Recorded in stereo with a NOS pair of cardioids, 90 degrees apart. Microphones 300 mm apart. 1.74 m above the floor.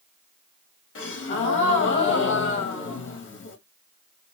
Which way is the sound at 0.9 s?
45° left.